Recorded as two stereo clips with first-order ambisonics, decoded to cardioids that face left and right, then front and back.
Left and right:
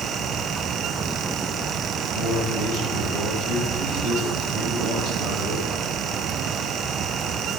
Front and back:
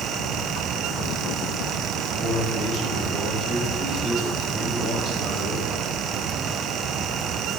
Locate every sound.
2.1 s a man speaking: 120° left, 6.5 m